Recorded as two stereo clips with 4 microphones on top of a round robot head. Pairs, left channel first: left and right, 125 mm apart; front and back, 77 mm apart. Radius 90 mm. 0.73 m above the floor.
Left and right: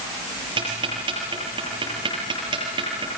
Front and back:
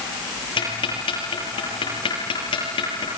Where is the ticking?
30° right, 7.5 m.